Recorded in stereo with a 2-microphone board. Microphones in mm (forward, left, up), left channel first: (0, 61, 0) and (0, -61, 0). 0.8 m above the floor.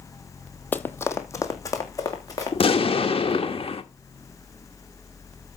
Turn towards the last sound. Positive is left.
turn(degrees=50)  # may be behind; listen again after turning